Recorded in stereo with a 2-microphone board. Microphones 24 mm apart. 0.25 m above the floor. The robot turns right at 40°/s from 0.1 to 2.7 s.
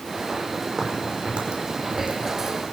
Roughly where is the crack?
Right.